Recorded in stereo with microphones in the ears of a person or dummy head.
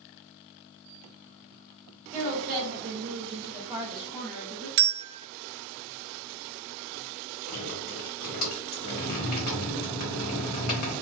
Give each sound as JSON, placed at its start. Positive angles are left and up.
{"t": 2.1, "sound": "a woman speaking", "side_deg": -40, "distance_m": 0.8}
{"t": 4.8, "sound": "a bell", "side_deg": -65, "distance_m": 0.6}
{"t": 7.5, "sound": "dripping", "side_deg": 50, "distance_m": 1.0}